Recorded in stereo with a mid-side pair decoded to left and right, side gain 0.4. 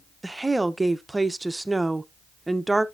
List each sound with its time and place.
0.2 s a woman speaking: 15° right, 0.8 m